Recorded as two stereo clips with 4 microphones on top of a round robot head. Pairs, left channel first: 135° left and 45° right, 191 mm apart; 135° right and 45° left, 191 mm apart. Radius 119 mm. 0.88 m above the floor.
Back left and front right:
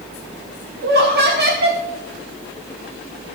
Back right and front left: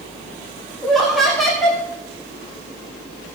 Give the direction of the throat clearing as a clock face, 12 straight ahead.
No throat clearing in this recording.